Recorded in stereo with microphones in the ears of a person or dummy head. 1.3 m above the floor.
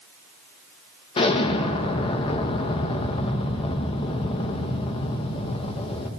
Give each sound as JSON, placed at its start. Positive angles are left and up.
{"t": 1.2, "sound": "an explosion", "side_deg": 35, "distance_m": 1.6}